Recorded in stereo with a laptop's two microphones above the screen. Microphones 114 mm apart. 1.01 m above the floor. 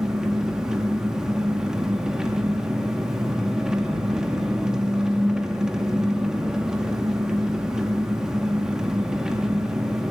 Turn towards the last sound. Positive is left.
turn(degrees=-5)  # may be behind; listen again after turning